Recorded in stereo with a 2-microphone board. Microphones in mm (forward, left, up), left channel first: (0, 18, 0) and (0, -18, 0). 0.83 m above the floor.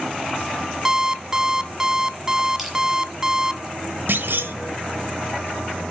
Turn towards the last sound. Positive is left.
turn(degrees=-70)  # may be behind; listen again after turning